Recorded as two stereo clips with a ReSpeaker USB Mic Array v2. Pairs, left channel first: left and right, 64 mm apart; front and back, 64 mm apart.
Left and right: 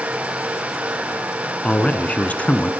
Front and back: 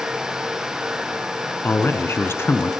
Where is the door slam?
I don't hear a door slam.